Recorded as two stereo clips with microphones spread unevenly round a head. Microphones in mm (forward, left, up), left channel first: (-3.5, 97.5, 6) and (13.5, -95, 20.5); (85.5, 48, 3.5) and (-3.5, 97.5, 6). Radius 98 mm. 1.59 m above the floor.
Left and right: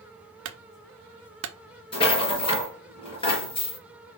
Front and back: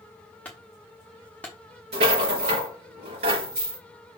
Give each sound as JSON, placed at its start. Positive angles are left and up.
{"t": 0.5, "sound": "a clunk", "azimuth_deg": -110, "distance_m": 0.9}
{"t": 1.9, "sound": "a rattle", "azimuth_deg": 160, "distance_m": 4.0}